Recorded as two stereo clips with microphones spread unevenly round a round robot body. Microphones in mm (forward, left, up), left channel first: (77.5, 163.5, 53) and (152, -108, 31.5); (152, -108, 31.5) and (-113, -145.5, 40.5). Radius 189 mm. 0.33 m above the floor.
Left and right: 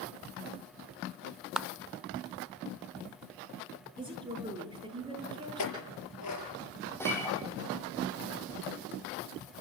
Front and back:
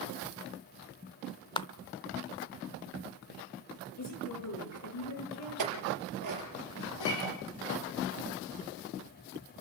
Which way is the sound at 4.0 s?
Straight ahead.